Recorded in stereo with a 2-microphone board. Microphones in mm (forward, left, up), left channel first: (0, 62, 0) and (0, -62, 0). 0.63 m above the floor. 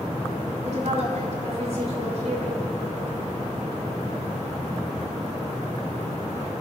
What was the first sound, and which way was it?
A woman speaking, 65° right (ahead or behind).